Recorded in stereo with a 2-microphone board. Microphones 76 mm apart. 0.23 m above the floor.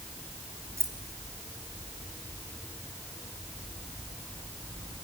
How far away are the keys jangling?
About 3 m.